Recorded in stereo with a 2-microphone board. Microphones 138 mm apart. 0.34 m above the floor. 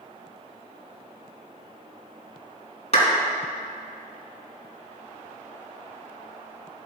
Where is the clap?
50° left (ahead or behind), 2.5 m.